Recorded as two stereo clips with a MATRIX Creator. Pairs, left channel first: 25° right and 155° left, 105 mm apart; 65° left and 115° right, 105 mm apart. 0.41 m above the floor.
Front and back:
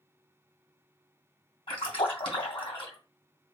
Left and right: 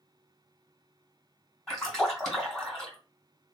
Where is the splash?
20° right, 2 m.